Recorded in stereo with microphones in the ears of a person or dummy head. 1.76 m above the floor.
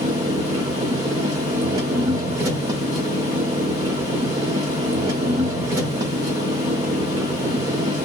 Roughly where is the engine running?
Centre.